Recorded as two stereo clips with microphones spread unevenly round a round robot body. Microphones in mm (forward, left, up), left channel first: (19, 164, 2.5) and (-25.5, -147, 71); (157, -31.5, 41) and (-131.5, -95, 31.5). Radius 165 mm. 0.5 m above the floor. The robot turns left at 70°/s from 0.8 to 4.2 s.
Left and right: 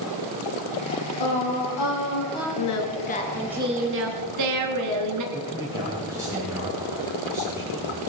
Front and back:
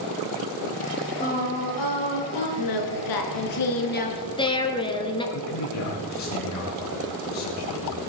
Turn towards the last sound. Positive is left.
turn(degrees=-15)